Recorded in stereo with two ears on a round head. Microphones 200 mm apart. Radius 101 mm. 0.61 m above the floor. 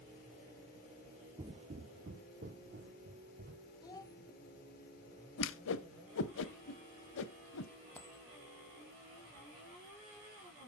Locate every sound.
1.4 s footsteps: 20° right (ahead or behind), 0.6 m; by 3.7 s 45° right (ahead or behind), 2.5 m
3.8 s a child speaking: 20° left (ahead or behind), 1.2 m
5.4 s a whoosh: 60° left (ahead or behind), 0.6 m
8.0 s a dropped coin: 10° left (ahead or behind), 1.6 m